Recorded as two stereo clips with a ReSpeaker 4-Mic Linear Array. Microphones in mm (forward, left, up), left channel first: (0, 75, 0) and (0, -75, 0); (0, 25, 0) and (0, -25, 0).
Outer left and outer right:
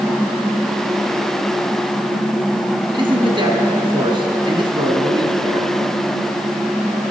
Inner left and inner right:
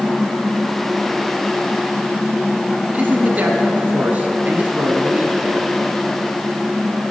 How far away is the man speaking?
About 1.2 m.